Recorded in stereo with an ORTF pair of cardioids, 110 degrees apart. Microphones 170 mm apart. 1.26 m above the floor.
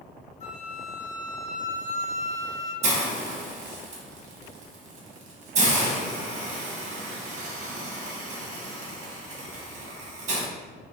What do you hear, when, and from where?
0.4 s a flute: 40° left, 0.9 m
2.8 s a hiss: 40° right, 0.8 m